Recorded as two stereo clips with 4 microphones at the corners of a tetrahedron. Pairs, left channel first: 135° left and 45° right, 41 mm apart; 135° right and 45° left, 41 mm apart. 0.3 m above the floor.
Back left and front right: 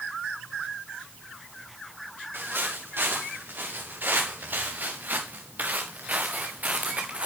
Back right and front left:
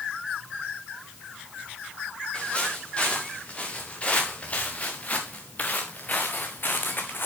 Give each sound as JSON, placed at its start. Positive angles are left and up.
{"t": 2.3, "sound": "footsteps", "azimuth_deg": -70, "distance_m": 4.0}